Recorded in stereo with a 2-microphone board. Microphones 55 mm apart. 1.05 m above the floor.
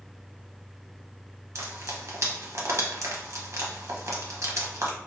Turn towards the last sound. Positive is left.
turn(degrees=-60)  # may be behind; listen again after turning